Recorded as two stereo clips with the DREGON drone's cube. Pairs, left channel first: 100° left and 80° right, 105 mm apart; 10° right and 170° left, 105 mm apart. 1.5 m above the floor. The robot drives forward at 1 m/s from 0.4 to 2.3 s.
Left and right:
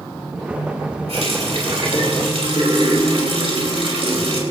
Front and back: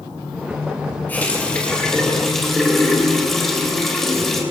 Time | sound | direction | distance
1.1 | a running tap | 80° right | 4.5 m